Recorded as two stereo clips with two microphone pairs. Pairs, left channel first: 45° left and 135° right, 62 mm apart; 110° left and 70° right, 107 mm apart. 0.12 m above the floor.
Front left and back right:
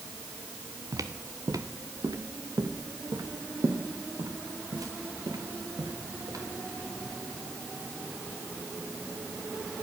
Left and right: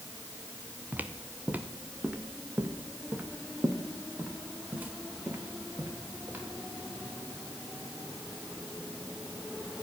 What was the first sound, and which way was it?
Footsteps, 140° right.